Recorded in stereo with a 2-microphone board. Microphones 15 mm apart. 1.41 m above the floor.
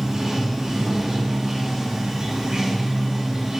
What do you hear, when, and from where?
0.0 s running water: 40° right (ahead or behind), 0.7 m